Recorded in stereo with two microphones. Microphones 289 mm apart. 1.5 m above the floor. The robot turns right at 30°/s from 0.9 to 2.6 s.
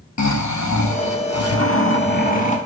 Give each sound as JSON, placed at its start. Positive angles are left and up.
{"t": 0.2, "sound": "snoring", "azimuth_deg": 105, "distance_m": 0.7}